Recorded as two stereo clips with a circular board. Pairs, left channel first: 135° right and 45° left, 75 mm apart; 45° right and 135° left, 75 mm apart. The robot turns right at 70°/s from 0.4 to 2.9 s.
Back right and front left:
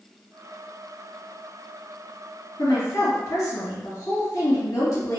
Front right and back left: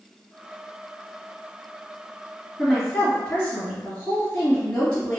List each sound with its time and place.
2.6 s a woman speaking: 140° right, 1.7 m; by 5.2 s 120° right, 1.7 m